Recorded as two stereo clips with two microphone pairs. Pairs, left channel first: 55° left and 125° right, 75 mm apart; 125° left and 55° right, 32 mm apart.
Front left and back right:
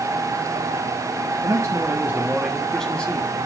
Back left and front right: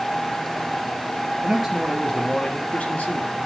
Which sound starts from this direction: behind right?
A man speaking, at 1.4 s.